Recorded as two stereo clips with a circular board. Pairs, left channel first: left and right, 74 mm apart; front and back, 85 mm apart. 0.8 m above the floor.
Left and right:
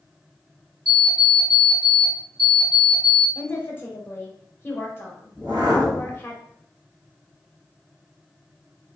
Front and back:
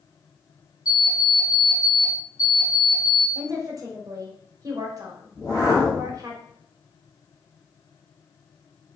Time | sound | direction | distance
0.8 | an alarm clock | 45° right | 1.6 m
3.4 | a woman speaking | 140° left | 0.8 m
5.3 | a whoosh | 40° right | 1.6 m